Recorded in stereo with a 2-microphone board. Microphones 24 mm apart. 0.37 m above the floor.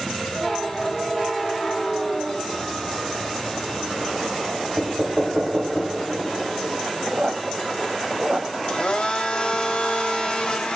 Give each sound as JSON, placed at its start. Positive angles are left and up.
{"t": 4.8, "sound": "knocking", "side_deg": -45, "distance_m": 0.9}
{"t": 7.1, "sound": "a squeak", "side_deg": -65, "distance_m": 0.7}
{"t": 8.7, "sound": "a blender", "side_deg": 40, "distance_m": 0.9}